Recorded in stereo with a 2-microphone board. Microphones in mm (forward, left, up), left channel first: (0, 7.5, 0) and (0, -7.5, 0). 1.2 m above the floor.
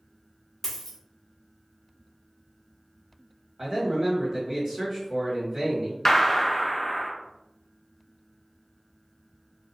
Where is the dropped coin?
20° left (ahead or behind), 0.9 m.